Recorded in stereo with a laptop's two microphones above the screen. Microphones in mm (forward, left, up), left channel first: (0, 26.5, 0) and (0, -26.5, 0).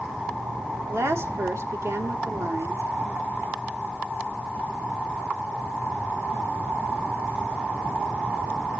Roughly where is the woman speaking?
Right.